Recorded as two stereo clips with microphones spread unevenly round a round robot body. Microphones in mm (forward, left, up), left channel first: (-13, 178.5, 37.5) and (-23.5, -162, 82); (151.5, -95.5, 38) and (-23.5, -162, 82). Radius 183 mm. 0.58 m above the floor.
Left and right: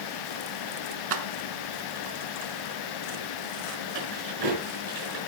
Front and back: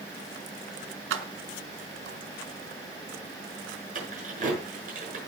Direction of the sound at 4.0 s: 110° right.